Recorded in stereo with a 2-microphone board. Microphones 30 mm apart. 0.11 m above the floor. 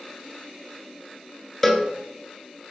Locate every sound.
1.6 s a cowbell: 10° left (ahead or behind), 0.6 m